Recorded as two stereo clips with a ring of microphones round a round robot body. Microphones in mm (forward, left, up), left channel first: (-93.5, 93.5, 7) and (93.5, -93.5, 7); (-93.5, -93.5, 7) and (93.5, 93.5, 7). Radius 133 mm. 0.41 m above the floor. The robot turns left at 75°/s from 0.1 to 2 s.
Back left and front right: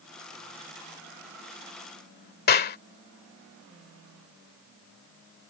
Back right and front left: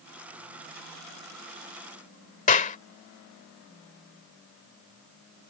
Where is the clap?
175° left.